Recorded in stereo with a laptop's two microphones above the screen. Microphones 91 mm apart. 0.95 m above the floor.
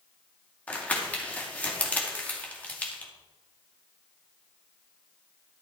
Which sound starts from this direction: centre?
Crumpling, at 0.7 s.